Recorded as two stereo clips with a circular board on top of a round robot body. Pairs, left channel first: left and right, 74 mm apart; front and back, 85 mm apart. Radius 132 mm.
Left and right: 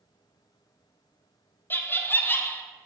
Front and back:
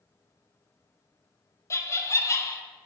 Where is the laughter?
40° left, 0.6 m.